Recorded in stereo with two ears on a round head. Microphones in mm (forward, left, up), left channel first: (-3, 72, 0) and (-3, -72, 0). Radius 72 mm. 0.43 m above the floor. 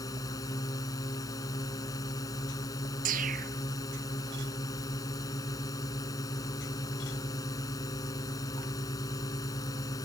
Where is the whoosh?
50° right (ahead or behind).